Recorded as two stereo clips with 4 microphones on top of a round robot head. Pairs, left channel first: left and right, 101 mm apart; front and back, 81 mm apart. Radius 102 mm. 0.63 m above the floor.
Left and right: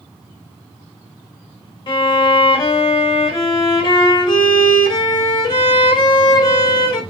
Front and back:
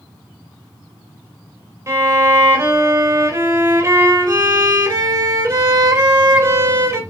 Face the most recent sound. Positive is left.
turn(degrees=130)